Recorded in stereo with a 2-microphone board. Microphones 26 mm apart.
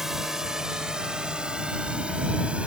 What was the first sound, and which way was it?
A drone, 10° right (ahead or behind).